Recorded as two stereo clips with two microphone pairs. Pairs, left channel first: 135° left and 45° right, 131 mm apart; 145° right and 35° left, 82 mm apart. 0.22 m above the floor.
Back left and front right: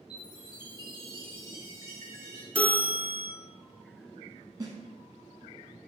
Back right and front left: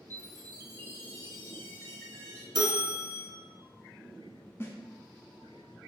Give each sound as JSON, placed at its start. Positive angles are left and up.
{"t": 0.1, "sound": "a chime", "azimuth_deg": 170, "distance_m": 1.0}
{"t": 2.5, "sound": "a bell", "azimuth_deg": 55, "distance_m": 1.0}
{"t": 4.6, "sound": "a snare drum", "azimuth_deg": -95, "distance_m": 0.8}